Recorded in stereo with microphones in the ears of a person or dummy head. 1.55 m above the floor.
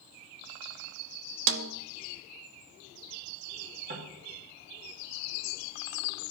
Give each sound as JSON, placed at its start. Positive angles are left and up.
{"t": 1.5, "sound": "a snare drum", "side_deg": -65, "distance_m": 0.6}
{"t": 3.9, "sound": "knocking", "side_deg": -50, "distance_m": 2.5}